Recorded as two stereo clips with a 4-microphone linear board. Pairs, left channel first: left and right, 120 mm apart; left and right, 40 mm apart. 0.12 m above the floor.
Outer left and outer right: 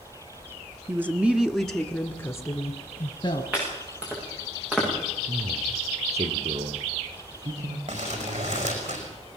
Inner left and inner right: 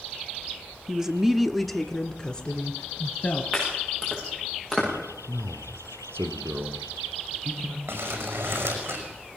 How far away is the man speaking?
About 5 m.